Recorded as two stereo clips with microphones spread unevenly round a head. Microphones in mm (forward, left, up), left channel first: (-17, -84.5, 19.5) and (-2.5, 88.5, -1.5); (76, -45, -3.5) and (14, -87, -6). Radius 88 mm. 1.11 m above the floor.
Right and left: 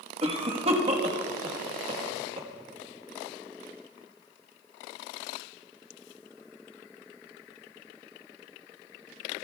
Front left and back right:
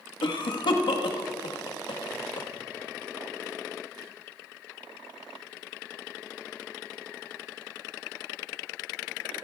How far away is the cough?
About 1.3 m.